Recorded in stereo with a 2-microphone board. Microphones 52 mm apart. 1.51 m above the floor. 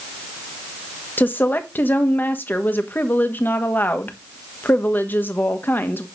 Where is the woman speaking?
35° left (ahead or behind), 1.4 m.